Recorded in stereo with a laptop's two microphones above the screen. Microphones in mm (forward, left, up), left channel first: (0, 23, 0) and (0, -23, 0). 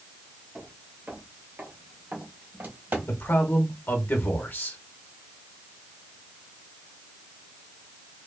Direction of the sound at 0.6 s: 25° right (ahead or behind).